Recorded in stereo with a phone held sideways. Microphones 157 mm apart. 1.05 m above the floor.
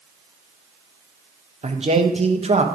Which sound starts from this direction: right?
A man speaking, at 1.6 s.